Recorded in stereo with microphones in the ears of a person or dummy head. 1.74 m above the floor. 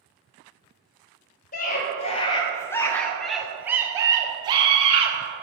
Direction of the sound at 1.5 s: 45° left (ahead or behind).